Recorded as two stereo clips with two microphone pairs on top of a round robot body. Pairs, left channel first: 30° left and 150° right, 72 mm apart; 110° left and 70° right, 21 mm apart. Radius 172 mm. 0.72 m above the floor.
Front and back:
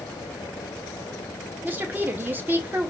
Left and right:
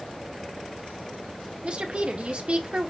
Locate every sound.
1.6 s a woman speaking: 90° right, 1.2 m